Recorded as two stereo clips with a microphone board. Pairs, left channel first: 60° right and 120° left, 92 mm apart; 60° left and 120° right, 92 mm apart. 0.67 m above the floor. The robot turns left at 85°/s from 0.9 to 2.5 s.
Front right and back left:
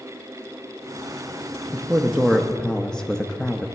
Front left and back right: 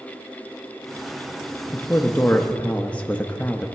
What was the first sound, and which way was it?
A man speaking, 75° left.